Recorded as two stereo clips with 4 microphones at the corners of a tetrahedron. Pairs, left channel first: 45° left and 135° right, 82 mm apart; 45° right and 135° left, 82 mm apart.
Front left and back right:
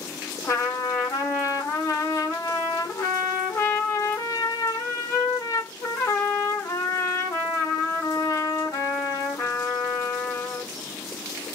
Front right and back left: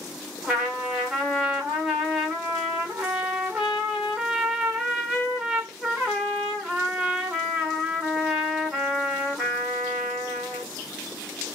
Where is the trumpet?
50° left, 1.1 m.